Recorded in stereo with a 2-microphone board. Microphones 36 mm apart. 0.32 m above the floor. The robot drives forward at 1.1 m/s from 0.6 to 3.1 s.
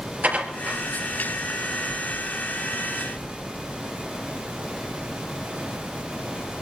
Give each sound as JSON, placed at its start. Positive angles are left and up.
{"t": 0.2, "sound": "dishes clattering", "side_deg": -45, "distance_m": 4.5}